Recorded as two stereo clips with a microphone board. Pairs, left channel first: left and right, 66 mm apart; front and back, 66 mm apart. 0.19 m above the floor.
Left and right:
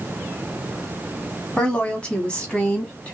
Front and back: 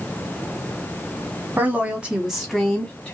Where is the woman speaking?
150° left, 1.5 m; by 3.1 s 45° left, 1.5 m.